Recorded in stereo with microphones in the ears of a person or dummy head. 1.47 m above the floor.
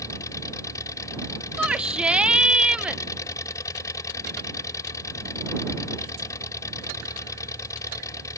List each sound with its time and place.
0.0 s an engine running: 15° left (ahead or behind)
1.6 s a shout: centre (ahead or behind)